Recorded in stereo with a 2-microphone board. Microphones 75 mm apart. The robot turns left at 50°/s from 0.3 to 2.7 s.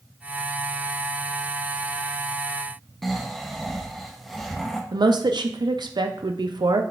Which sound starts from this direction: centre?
Snoring, at 3.0 s.